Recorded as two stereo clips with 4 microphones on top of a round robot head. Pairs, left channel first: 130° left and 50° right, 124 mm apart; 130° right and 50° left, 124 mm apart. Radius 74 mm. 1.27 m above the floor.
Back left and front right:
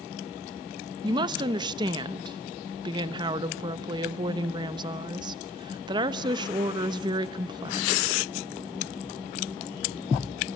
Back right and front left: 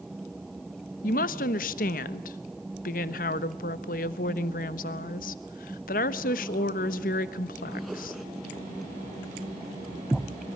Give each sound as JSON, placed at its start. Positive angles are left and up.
{"t": 1.0, "sound": "a woman speaking", "azimuth_deg": -110, "distance_m": 1.1}